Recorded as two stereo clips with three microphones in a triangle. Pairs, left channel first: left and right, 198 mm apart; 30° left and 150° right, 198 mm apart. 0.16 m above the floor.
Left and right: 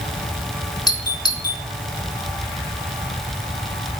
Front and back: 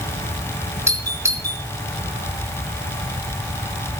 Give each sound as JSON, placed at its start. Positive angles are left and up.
{"t": 0.9, "sound": "a doorbell", "azimuth_deg": 145, "distance_m": 2.5}